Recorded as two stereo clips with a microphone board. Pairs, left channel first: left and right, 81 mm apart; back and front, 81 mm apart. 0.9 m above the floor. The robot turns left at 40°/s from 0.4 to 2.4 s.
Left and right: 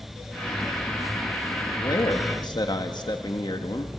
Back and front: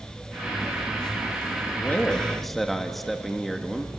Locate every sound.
1.7 s a man speaking: 120° left, 1.4 m; by 4.0 s 90° left, 1.4 m